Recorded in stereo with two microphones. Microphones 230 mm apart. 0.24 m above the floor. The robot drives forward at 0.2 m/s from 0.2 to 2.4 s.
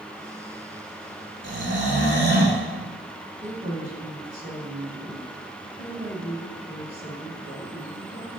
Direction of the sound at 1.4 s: 55° right (ahead or behind).